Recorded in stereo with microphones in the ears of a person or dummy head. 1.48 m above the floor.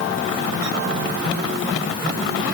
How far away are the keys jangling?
No keys jangling in this recording.